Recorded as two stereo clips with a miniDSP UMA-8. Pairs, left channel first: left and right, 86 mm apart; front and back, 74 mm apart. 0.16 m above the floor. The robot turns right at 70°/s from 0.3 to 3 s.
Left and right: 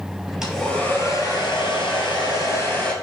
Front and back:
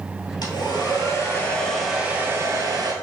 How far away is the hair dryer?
About 1.8 m.